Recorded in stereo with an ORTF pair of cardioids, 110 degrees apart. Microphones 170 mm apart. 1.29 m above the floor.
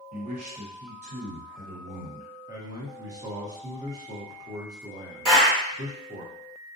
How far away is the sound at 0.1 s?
About 1.2 m.